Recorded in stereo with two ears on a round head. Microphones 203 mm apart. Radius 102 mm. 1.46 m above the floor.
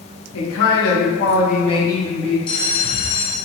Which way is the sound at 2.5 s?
25° left (ahead or behind).